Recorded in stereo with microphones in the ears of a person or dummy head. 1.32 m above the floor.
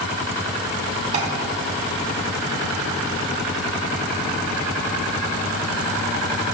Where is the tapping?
35° right (ahead or behind), 3 m.